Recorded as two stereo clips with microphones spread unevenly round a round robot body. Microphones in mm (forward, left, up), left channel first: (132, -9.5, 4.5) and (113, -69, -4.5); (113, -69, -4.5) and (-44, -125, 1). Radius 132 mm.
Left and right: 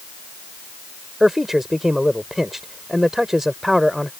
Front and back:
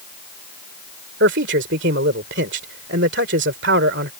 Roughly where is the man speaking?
Behind.